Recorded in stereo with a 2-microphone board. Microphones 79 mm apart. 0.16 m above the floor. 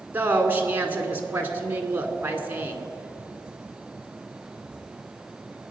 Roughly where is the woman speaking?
Right.